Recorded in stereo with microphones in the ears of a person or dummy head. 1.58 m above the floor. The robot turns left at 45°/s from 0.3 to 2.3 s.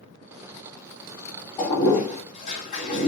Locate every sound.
1.6 s a toilet flushing: 10° left (ahead or behind), 1.1 m; by 3.1 s 40° left (ahead or behind), 1.1 m